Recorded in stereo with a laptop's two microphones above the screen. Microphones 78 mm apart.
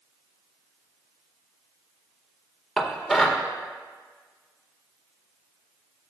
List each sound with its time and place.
2.8 s dishes clattering: centre (ahead or behind), 1.8 m